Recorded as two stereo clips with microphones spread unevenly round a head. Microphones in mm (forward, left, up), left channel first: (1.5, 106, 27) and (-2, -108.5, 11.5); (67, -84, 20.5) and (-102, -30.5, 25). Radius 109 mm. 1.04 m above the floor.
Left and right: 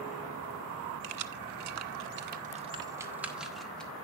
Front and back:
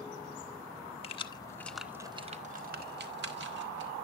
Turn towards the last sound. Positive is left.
turn(degrees=175)